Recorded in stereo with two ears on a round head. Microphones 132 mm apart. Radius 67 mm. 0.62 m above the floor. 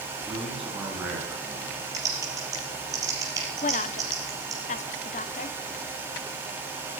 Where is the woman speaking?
50° left (ahead or behind), 0.8 m.